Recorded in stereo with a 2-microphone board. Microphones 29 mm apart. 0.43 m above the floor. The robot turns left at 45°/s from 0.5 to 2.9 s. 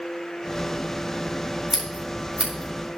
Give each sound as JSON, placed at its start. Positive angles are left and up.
{"t": 1.7, "sound": "scissors", "side_deg": -10, "distance_m": 7.0}